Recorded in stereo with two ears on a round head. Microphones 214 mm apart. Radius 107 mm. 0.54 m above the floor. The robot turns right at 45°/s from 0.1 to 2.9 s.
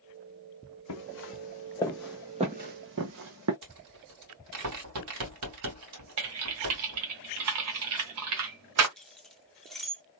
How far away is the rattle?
About 2 m.